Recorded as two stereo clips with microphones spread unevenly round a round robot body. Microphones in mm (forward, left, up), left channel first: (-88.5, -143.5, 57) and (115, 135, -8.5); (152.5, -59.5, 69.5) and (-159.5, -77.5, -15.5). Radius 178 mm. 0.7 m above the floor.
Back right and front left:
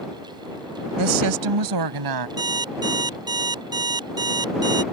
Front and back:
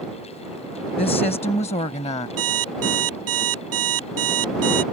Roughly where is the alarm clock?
Behind left.